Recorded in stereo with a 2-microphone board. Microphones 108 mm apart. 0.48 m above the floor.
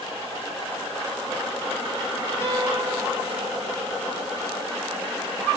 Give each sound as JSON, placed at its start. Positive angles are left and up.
{"t": 2.4, "sound": "a guitar", "side_deg": 25, "distance_m": 3.0}